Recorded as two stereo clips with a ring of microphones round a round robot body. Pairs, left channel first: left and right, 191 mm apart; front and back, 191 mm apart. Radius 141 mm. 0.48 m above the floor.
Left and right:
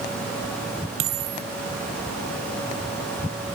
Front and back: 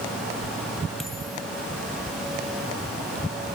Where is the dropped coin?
90° right.